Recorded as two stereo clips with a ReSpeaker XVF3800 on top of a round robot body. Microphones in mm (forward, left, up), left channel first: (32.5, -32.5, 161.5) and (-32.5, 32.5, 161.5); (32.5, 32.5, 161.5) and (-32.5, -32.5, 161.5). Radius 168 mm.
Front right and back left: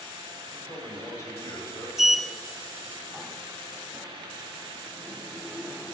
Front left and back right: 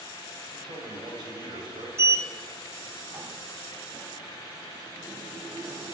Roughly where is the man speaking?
Right.